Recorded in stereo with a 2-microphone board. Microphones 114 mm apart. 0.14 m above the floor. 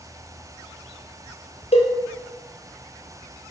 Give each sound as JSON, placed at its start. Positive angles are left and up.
{"t": 1.7, "sound": "a cowbell", "side_deg": 65, "distance_m": 0.7}